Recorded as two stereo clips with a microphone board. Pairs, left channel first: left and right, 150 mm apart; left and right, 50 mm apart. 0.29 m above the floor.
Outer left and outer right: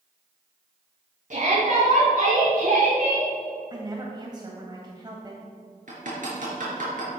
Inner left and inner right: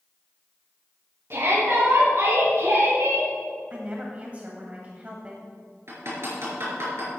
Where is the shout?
60° right (ahead or behind), 3 m; by 3.3 s 70° right (ahead or behind), 4.5 m.